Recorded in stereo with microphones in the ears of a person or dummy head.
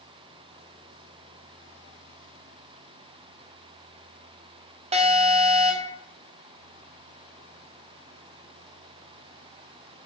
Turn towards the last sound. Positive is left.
turn(degrees=-35)  # may be behind; listen again after turning